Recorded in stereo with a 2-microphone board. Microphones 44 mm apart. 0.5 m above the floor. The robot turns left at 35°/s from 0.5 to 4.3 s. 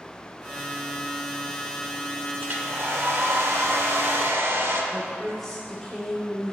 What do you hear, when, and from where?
2.4 s a hair dryer: 50° right, 0.7 m; by 4.8 s 115° right, 0.7 m
4.9 s a woman speaking: 10° left (ahead or behind), 0.8 m